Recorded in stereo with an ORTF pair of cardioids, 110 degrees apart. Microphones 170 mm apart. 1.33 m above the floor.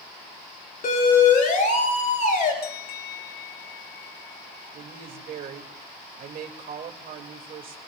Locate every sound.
0.8 s a siren: 50° left, 4.5 m
2.6 s a bell: 70° left, 0.9 m
4.7 s a woman speaking: 60° right, 2.5 m